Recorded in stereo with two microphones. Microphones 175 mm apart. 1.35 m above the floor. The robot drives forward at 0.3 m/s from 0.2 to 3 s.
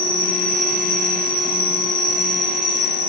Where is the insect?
55° left (ahead or behind), 2.5 m; by 3.1 s 45° left (ahead or behind), 3 m.